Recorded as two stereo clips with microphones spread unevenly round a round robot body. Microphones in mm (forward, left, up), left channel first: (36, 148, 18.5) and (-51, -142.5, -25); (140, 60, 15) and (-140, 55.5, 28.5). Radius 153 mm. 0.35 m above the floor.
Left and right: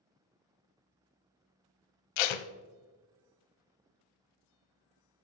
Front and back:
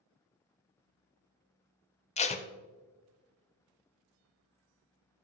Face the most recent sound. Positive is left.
turn(degrees=70)